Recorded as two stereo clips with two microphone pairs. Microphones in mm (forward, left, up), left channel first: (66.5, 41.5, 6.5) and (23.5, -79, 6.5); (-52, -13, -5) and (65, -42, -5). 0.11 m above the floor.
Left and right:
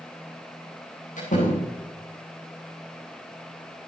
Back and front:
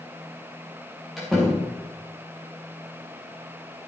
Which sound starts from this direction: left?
A door slam, at 1.2 s.